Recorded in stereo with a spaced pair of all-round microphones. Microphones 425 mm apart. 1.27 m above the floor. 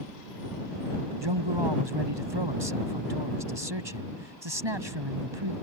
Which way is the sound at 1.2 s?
85° right.